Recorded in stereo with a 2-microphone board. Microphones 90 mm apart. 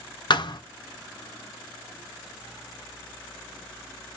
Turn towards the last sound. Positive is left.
turn(degrees=55)  # may be behind; listen again after turning